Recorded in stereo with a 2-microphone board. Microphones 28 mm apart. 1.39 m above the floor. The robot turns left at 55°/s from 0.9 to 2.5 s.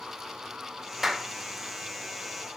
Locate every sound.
1.0 s a clap: 5° right (ahead or behind), 1.9 m; by 1.3 s 10° left (ahead or behind), 1.9 m